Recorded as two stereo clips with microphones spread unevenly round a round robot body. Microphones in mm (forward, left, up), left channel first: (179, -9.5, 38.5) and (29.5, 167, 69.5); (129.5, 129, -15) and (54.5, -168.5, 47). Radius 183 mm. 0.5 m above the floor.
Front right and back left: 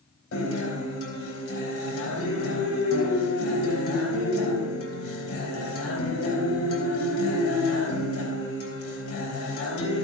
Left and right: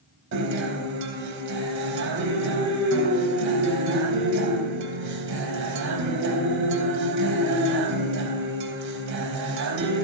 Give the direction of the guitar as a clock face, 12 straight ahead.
2 o'clock.